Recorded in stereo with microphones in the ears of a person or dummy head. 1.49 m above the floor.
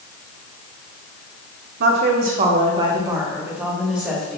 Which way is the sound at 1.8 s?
60° right (ahead or behind).